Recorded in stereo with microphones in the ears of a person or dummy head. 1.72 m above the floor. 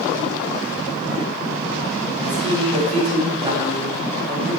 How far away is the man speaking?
About 8 m.